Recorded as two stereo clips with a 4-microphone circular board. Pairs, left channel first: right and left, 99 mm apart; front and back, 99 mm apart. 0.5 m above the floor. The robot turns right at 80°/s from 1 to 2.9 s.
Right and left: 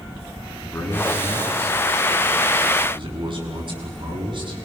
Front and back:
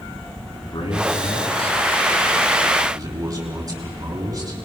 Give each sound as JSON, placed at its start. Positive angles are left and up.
{"t": 0.6, "sound": "a man speaking", "azimuth_deg": -25, "distance_m": 5.5}